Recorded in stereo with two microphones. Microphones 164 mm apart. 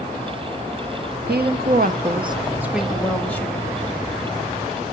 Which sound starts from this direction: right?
A woman speaking, at 1.3 s.